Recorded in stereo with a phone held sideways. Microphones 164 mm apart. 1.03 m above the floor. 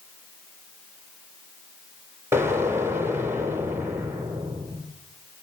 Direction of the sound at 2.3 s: 15° right (ahead or behind).